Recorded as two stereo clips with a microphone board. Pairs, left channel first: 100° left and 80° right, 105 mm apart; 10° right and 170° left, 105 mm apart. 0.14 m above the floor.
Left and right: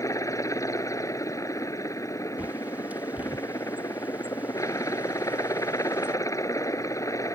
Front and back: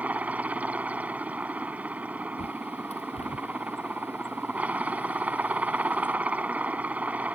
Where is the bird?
5° right.